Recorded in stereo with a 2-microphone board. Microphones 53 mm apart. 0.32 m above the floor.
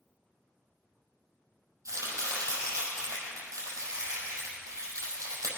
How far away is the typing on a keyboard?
I don't hear typing on a keyboard.